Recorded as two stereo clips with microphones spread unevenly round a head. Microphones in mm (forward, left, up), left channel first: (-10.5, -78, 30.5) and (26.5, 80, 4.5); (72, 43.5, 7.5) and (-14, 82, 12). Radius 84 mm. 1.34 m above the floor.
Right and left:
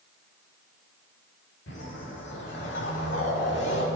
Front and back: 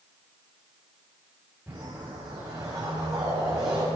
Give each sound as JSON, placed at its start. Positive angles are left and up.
{"t": 1.7, "sound": "a whoosh", "azimuth_deg": -125, "distance_m": 3.0}